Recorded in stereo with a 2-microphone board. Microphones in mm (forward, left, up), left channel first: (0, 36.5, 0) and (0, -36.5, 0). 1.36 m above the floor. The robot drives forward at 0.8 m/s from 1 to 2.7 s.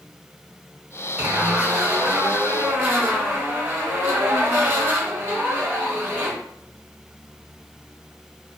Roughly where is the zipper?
Right.